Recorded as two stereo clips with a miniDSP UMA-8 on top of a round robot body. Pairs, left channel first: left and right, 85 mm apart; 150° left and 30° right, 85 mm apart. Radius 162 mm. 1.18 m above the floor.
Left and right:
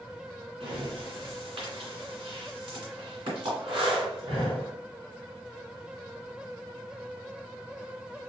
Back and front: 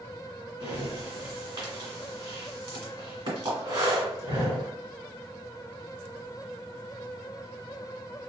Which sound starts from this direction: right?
Breathing, at 0.6 s.